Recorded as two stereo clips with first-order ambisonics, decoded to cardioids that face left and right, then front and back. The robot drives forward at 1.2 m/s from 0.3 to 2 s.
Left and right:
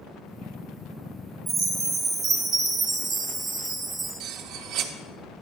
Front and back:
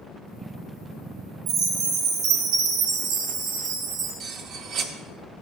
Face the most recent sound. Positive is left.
turn(degrees=-130)